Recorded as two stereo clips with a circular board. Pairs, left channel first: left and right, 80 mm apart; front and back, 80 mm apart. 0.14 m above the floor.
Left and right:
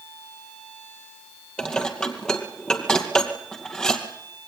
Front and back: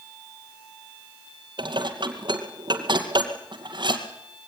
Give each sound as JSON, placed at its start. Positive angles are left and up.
{"t": 1.6, "sound": "dishes clattering", "azimuth_deg": 170, "distance_m": 2.5}